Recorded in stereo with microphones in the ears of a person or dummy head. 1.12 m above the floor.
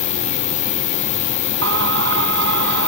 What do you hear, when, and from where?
0.0 s an insect: 35° left (ahead or behind)
1.6 s singing: 75° right (ahead or behind)